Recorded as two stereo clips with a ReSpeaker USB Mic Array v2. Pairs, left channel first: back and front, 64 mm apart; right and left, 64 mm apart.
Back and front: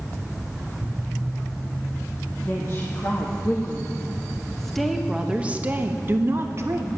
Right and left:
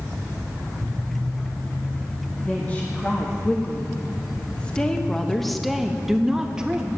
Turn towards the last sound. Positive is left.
turn(degrees=20)